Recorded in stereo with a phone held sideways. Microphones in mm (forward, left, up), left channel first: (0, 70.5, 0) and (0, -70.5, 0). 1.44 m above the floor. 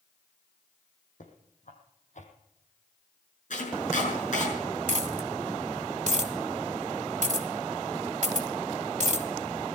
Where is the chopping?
60° left (ahead or behind), 6 m.